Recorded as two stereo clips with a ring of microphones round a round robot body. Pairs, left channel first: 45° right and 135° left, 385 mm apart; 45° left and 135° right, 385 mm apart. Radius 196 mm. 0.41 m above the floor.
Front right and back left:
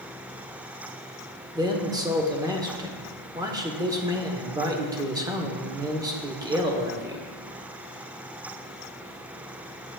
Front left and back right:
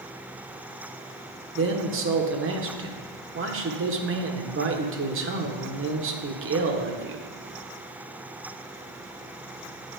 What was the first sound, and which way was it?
A man speaking, 155° right.